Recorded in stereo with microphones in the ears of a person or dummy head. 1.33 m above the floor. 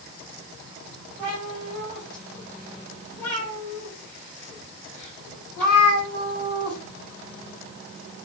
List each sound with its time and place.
1.2 s a cat meowing: 10° left (ahead or behind), 2 m